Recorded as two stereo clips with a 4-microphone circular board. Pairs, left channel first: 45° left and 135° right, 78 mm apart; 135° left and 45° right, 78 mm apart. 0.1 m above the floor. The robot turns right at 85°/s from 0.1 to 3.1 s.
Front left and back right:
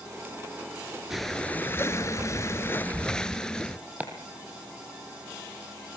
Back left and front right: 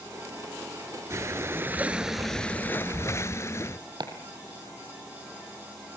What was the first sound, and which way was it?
Breathing, 50° right.